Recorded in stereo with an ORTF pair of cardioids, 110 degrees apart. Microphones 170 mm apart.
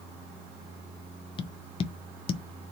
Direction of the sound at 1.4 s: 35° left.